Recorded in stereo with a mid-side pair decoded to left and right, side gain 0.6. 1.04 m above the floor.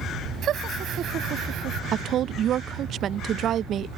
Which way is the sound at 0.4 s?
50° right.